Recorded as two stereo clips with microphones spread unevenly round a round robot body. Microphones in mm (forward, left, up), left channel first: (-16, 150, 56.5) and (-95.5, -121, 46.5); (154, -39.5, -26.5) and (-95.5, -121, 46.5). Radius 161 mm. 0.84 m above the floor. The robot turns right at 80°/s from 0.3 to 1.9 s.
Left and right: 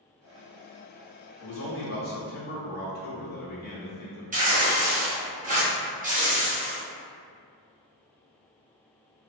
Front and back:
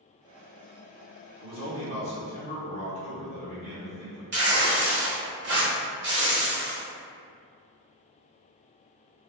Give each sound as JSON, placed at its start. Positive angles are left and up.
{"t": 1.4, "sound": "a man speaking", "azimuth_deg": 85, "distance_m": 1.2}
{"t": 4.3, "sound": "tearing paper", "azimuth_deg": -125, "distance_m": 1.0}